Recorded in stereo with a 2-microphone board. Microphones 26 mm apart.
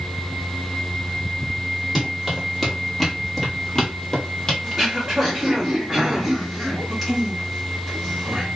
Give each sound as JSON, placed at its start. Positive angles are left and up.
{"t": 1.9, "sound": "running footsteps", "side_deg": -10, "distance_m": 1.7}
{"t": 4.6, "sound": "throat clearing", "side_deg": -5, "distance_m": 1.2}